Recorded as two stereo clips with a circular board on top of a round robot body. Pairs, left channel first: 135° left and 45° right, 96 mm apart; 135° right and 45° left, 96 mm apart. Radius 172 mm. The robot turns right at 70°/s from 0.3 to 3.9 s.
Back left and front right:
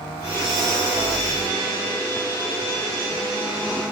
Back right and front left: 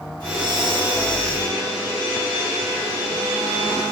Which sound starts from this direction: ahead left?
Breathing, at 0.2 s.